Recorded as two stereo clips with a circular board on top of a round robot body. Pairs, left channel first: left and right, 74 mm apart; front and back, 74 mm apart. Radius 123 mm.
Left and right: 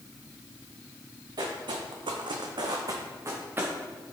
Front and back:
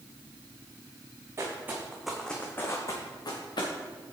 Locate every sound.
1.4 s footsteps: 125° right, 1.5 m; by 3.7 s 25° right, 1.9 m